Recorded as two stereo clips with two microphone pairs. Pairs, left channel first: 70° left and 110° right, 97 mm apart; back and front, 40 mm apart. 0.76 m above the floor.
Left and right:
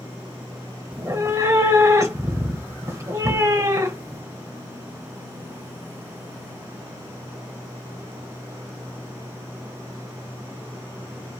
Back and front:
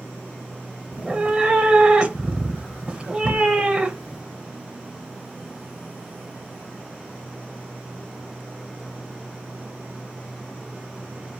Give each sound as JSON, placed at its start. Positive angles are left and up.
{"t": 0.9, "sound": "a cat meowing", "azimuth_deg": -50, "distance_m": 0.8}